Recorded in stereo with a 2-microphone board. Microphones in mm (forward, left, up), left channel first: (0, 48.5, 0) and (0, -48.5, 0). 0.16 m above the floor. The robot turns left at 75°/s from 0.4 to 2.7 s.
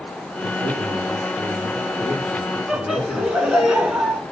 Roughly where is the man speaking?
Ahead right.